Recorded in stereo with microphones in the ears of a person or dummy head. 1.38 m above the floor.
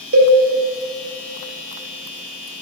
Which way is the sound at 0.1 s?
75° right (ahead or behind).